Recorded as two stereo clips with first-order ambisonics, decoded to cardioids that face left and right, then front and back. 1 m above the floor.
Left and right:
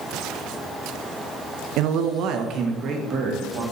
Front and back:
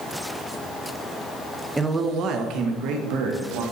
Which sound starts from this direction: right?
A man speaking, at 1.8 s.